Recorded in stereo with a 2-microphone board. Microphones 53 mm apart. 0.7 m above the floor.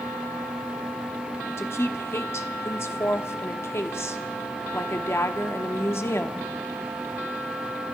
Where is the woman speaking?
55° left (ahead or behind), 1.1 m.